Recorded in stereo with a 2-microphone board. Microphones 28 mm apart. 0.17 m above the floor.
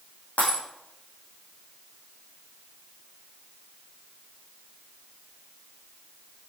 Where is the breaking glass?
55° left (ahead or behind), 5.5 m.